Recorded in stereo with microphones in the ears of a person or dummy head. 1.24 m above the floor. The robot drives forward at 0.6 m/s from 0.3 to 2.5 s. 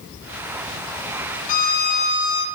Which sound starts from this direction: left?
A violin, at 1.5 s.